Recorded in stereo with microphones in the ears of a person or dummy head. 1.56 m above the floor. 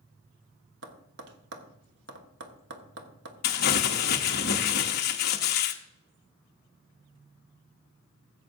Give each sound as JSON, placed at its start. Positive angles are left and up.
{"t": 0.8, "sound": "tapping", "side_deg": -65, "distance_m": 1.1}
{"t": 3.4, "sound": "crumpling", "side_deg": 50, "distance_m": 0.8}